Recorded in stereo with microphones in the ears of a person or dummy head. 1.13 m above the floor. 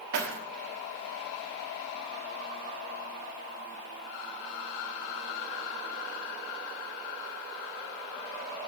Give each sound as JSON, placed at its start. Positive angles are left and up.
{"t": 0.1, "sound": "keys jangling", "side_deg": -65, "distance_m": 1.1}